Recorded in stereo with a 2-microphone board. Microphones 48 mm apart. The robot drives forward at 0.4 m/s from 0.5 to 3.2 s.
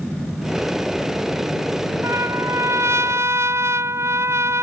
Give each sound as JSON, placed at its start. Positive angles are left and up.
{"t": 2.0, "sound": "a trumpet", "side_deg": -70}